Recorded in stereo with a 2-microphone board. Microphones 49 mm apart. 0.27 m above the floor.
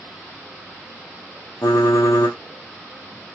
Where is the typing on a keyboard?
85° left, 1.6 m.